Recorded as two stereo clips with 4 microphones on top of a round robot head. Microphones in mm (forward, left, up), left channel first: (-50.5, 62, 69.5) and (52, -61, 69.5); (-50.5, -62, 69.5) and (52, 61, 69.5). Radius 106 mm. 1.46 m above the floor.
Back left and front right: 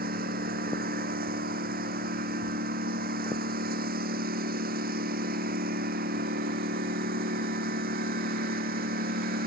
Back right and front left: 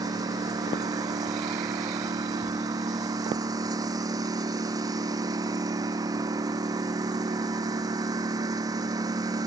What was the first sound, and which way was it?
A lawn mower, 20° right.